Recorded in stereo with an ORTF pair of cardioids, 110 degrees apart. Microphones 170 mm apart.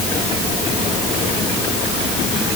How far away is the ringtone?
I don't hear a ringtone.